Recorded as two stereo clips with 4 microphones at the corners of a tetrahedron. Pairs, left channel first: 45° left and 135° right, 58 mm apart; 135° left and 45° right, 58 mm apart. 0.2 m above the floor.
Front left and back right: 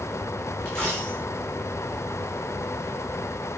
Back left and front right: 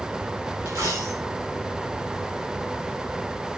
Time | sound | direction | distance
0.7 | a dropped coin | 30° right | 8 m